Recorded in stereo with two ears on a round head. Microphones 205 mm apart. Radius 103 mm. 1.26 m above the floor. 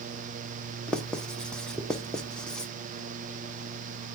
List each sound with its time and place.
0.9 s writing: 5° left (ahead or behind), 0.6 m